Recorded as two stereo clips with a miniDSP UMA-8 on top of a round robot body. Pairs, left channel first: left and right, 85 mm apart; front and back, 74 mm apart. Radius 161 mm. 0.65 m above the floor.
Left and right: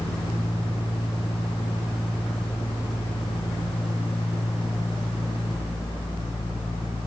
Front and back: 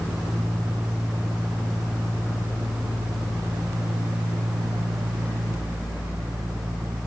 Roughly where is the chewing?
No chewing in this recording.